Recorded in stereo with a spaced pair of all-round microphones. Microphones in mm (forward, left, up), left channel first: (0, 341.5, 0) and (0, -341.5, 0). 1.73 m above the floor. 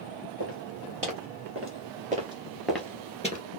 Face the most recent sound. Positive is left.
turn(degrees=10)  # may be behind; listen again after turning